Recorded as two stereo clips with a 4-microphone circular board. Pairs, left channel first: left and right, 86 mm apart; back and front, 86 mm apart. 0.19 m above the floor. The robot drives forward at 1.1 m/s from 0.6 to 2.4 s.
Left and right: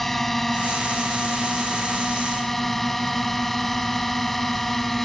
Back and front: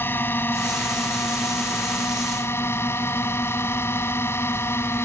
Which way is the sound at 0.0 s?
175° left.